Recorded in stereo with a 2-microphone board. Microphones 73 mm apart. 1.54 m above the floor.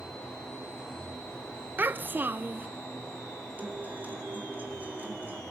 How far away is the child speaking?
About 0.7 m.